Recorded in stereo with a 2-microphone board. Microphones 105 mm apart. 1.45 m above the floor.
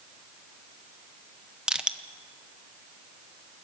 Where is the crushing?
5° right (ahead or behind), 0.8 m.